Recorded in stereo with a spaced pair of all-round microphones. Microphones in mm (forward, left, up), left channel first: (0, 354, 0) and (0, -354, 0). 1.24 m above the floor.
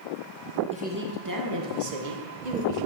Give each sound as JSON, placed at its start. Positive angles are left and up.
{"t": 0.7, "sound": "a woman speaking", "side_deg": -10, "distance_m": 1.4}